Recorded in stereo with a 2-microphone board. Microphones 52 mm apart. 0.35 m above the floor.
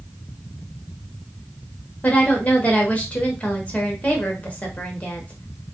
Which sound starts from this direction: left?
A woman speaking, at 2.0 s.